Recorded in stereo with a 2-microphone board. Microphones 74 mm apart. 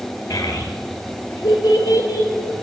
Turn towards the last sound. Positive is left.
turn(degrees=50)  # may be behind; listen again after turning